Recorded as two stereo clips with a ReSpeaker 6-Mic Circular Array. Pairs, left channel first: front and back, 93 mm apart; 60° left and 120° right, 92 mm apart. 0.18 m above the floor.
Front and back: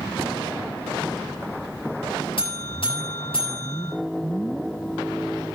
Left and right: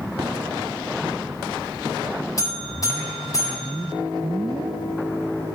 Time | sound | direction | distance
2.4 | a buzzer | 10° left | 7.5 m